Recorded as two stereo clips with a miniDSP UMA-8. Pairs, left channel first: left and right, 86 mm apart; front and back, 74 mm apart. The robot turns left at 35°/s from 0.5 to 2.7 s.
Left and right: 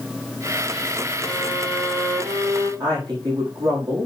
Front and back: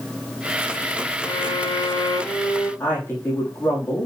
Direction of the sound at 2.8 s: 60° right.